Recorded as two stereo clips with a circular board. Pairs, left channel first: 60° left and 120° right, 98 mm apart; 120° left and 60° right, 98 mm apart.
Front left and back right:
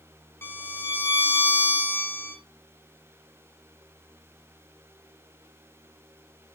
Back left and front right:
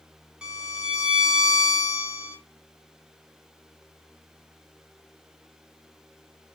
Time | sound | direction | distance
0.4 | a violin | 10° left | 0.6 m